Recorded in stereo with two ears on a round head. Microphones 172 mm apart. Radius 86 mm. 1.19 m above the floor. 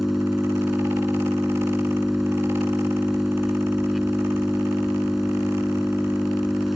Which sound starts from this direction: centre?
An engine running, at 0.0 s.